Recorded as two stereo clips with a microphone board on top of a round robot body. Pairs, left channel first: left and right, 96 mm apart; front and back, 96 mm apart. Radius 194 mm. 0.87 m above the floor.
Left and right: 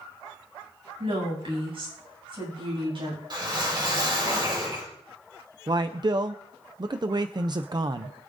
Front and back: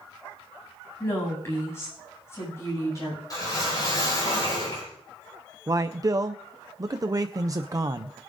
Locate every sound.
1.0 s a woman speaking: 65° right, 8.5 m; by 3.2 s 60° right, 8 m
3.3 s a whoosh: 50° right, 5.5 m
5.7 s a man speaking: 130° right, 0.6 m